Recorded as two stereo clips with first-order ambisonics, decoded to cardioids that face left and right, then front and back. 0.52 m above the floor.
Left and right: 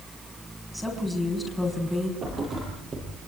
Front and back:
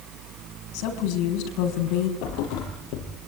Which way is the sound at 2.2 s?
25° right.